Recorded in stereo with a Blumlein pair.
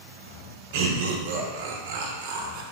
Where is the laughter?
50° right, 0.5 m.